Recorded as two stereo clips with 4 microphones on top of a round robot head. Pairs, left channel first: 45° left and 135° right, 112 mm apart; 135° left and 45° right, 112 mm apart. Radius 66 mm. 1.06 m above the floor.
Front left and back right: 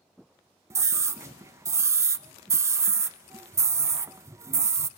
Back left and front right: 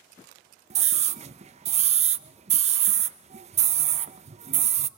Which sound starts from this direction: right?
A scream, at 0.7 s.